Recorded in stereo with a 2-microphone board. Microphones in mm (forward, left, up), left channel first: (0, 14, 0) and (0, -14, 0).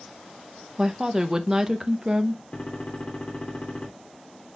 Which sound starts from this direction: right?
A woman speaking, at 0.8 s.